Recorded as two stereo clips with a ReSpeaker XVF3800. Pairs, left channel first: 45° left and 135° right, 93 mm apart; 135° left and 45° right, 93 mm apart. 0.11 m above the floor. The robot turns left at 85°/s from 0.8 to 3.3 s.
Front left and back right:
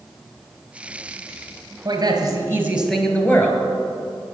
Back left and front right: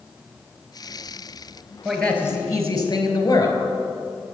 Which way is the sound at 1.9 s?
130° right.